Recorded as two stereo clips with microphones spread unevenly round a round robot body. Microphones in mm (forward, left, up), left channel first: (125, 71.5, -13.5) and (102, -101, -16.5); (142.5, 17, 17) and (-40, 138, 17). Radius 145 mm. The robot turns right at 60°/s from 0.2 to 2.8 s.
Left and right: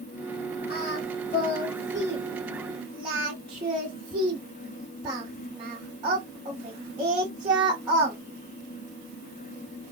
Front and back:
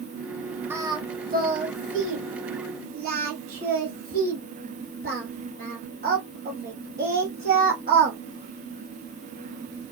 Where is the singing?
65° left, 0.9 m; by 8.2 s 165° right, 0.9 m.